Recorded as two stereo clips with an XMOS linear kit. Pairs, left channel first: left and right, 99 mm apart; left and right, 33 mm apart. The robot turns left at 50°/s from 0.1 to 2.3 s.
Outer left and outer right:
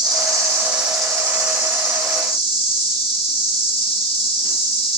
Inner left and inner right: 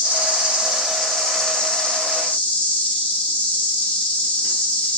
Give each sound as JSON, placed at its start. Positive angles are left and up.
{"t": 0.0, "sound": "an insect", "azimuth_deg": -135, "distance_m": 0.9}